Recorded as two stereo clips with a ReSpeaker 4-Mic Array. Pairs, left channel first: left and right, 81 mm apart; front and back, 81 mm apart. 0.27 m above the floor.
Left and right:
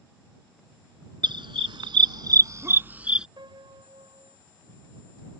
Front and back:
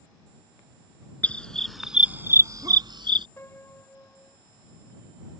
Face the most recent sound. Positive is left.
turn(degrees=-65)